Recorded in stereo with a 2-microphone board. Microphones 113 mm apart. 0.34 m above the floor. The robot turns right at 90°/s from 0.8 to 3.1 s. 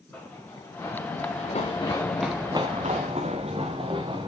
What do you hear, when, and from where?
0.1 s running footsteps: 15° left (ahead or behind), 3 m; by 4.3 s 45° right (ahead or behind), 2 m